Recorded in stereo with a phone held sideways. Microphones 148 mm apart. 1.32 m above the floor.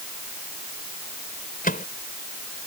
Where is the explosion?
No explosion in this recording.